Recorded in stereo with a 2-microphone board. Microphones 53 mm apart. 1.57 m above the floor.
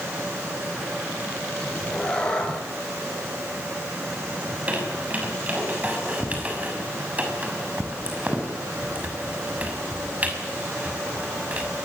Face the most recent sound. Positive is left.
turn(degrees=-25)  # may be behind; listen again after turning